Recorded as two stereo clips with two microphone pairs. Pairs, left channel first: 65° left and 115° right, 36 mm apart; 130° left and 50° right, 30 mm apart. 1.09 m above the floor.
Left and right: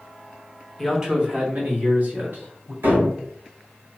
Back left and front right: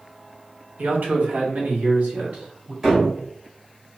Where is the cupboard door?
125° right, 2.0 m.